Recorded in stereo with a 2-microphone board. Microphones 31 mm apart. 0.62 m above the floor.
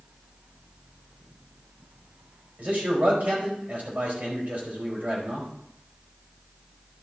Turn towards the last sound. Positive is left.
turn(degrees=-55)  # may be behind; listen again after turning